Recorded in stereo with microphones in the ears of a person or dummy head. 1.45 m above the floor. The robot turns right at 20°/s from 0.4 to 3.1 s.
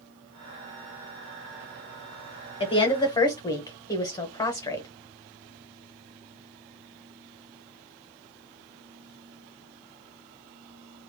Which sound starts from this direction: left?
A woman speaking, at 2.6 s.